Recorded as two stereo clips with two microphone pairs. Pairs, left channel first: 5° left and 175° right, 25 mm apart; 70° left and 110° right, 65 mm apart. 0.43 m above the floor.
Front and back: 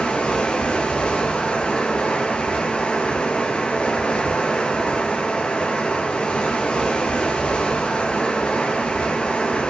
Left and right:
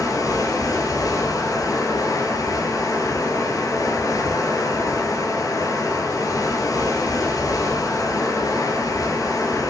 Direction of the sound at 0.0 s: 45° left.